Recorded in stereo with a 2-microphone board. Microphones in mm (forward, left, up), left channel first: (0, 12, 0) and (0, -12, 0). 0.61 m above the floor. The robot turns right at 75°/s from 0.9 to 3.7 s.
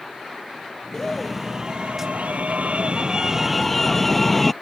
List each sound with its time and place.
0.9 s a scream: 155° left; by 4.5 s 5° left